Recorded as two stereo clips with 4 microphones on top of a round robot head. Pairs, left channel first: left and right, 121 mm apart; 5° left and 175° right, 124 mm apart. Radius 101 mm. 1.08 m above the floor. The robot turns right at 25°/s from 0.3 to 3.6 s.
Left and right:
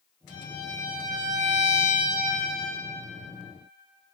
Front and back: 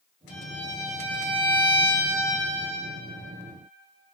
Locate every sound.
0.3 s a violin: straight behind, 1.1 m; by 2.8 s 120° right, 1.1 m